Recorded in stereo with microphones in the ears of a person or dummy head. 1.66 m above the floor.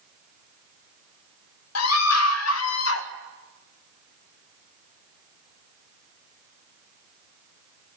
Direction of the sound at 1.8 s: 85° left.